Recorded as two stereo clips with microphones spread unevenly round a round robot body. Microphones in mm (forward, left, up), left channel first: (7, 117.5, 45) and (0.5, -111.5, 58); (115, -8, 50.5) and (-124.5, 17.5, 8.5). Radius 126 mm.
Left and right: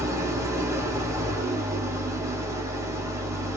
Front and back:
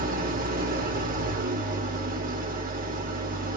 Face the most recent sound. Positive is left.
turn(degrees=-165)